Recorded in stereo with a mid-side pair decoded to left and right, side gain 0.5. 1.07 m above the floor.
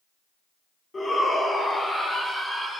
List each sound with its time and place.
0.9 s a shout: 30° left, 3.5 m; by 2.8 s 15° left, 5 m